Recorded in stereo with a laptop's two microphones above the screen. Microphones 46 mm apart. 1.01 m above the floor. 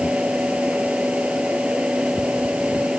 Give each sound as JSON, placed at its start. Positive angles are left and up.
{"t": 0.0, "sound": "a fan", "side_deg": -25}